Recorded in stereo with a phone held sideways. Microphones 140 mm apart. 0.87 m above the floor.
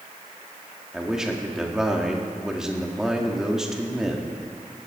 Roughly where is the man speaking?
Centre.